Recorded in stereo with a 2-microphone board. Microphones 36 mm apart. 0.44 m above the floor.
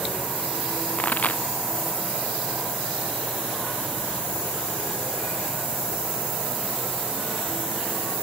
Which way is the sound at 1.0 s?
45° left (ahead or behind).